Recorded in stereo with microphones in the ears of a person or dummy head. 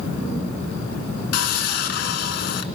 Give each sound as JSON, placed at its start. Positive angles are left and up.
{"t": 1.3, "sound": "sawing", "side_deg": 60, "distance_m": 1.5}